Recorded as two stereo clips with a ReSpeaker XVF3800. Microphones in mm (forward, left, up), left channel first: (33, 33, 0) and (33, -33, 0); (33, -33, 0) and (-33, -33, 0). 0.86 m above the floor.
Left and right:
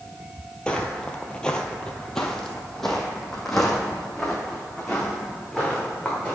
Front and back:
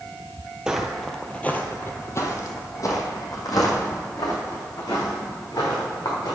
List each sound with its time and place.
0.7 s footsteps: 130° left, 0.9 m; by 6.4 s straight ahead, 3.5 m